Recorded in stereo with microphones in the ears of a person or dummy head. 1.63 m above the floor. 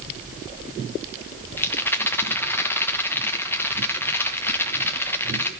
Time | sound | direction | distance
1.6 | a rattle | 10° left (ahead or behind) | 1.2 m